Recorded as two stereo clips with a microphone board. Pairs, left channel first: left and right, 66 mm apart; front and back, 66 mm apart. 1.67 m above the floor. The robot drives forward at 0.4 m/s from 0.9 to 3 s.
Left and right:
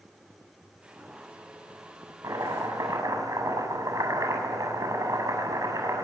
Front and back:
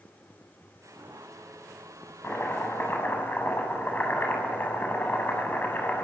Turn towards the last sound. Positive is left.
turn(degrees=-60)